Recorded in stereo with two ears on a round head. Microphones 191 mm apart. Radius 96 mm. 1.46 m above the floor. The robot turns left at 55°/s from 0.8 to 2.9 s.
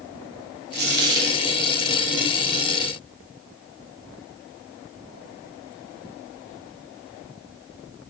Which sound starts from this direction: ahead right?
A dropped coin, at 0.7 s.